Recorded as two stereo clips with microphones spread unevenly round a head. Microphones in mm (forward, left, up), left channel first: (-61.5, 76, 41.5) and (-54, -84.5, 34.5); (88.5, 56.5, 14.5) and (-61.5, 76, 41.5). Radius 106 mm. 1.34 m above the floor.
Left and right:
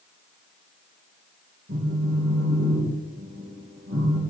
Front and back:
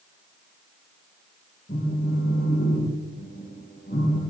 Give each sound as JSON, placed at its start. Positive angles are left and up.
{"t": 1.7, "sound": "a phone buzzing", "azimuth_deg": -60, "distance_m": 2.5}